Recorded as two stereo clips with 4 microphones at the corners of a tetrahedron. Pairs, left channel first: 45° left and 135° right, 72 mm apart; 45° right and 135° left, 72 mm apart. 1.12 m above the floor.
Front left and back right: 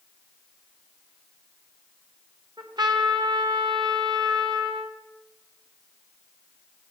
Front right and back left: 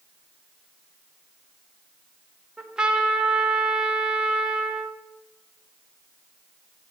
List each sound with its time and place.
2.6 s a trumpet: 145° right, 1.2 m